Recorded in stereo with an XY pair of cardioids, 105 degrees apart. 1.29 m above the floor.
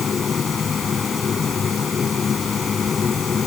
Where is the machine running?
40° left.